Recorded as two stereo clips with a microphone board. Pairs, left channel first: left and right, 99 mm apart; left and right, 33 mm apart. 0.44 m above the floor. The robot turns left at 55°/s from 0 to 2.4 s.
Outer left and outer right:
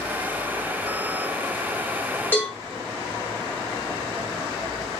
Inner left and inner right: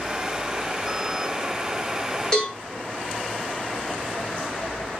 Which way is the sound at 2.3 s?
20° left (ahead or behind).